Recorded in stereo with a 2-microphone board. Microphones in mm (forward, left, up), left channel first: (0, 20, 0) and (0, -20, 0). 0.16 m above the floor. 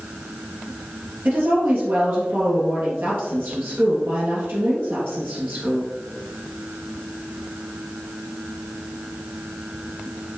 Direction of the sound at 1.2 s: 65° right (ahead or behind).